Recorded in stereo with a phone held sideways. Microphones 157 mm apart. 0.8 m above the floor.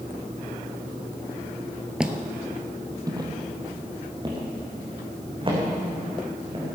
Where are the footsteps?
5° right (ahead or behind), 1.0 m; by 6.7 s 35° right (ahead or behind), 4.5 m.